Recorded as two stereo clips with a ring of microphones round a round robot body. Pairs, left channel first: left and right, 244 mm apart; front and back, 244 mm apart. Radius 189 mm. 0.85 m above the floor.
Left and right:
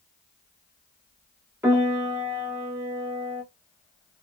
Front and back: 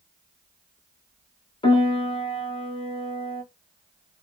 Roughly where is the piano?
Ahead right.